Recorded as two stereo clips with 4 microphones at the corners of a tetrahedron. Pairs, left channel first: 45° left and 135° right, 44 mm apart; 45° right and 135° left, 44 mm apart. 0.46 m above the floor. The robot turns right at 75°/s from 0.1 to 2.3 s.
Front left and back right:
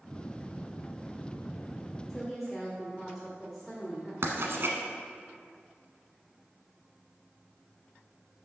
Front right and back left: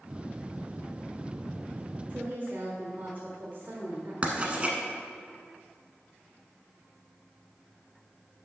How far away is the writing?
About 1.2 m.